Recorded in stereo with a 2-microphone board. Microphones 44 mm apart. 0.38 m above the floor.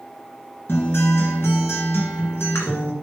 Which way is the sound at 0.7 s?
55° left (ahead or behind).